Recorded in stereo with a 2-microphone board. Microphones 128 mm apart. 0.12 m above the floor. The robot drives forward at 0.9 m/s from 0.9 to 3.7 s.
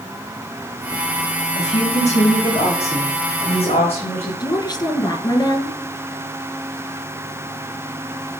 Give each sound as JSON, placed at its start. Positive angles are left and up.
{"t": 1.6, "sound": "a woman speaking", "side_deg": 65, "distance_m": 5.5}
{"t": 4.4, "sound": "a woman speaking", "side_deg": 35, "distance_m": 2.0}